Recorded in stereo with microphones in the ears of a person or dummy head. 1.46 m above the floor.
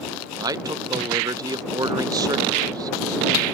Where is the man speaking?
10° right (ahead or behind).